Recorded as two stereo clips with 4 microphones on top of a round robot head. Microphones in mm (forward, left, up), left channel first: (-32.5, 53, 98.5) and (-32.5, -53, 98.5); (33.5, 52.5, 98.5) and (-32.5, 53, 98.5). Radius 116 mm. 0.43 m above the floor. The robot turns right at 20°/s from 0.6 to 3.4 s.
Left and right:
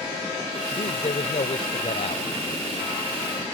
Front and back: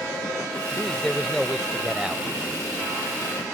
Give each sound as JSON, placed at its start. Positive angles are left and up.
{"t": 0.7, "sound": "a man speaking", "azimuth_deg": 75}